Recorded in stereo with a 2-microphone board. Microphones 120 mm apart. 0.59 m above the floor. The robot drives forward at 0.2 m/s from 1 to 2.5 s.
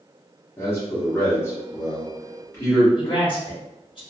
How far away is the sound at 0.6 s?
About 1.1 m.